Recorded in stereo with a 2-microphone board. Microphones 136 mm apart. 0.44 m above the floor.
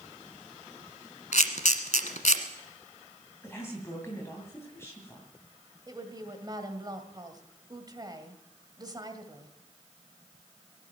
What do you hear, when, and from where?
1.3 s a camera shutter: 65° left (ahead or behind), 1.3 m
3.4 s a woman speaking: 20° left (ahead or behind), 2.5 m
5.9 s a woman speaking: 30° right (ahead or behind), 1.9 m